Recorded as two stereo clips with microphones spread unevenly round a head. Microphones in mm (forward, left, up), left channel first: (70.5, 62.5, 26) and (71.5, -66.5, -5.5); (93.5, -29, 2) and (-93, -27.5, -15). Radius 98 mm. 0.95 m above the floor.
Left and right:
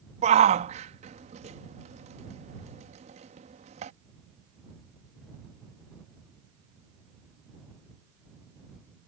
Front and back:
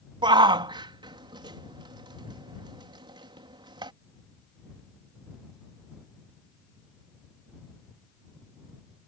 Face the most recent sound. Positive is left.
turn(degrees=-115)